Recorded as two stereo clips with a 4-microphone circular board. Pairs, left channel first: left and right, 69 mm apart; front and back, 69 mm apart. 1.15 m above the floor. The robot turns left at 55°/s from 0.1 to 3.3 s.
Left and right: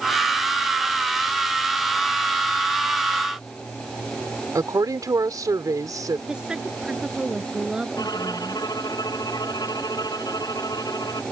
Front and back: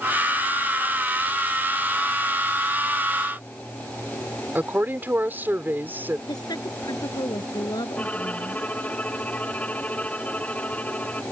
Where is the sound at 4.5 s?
120° right.